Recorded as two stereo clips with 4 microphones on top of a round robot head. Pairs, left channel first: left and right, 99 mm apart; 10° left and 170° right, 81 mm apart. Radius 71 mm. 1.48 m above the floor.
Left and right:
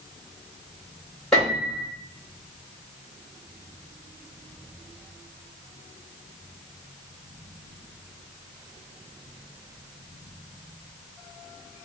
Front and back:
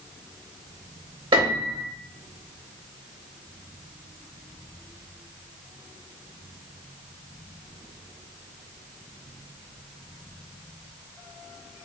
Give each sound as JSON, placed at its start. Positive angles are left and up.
{"t": 1.3, "sound": "a piano", "azimuth_deg": 175, "distance_m": 1.3}